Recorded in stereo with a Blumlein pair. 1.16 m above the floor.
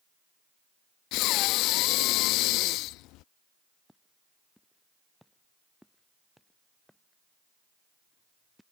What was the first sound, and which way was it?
Breathing, 40° left.